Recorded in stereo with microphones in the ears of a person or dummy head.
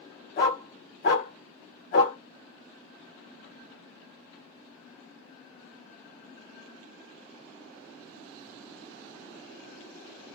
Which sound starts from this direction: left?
A dog barking, at 0.4 s.